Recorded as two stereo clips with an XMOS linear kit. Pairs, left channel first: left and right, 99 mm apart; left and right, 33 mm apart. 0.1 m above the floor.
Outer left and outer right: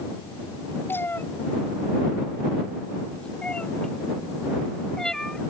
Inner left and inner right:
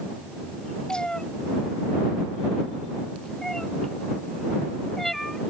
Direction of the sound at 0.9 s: 25° left (ahead or behind).